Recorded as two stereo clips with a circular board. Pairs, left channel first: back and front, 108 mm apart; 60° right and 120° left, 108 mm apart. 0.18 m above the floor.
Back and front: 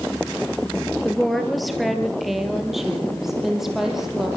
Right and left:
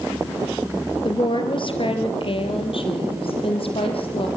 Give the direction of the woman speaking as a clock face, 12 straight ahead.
3 o'clock.